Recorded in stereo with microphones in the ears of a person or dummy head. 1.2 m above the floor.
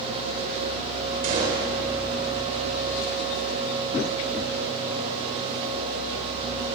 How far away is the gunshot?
About 3.5 m.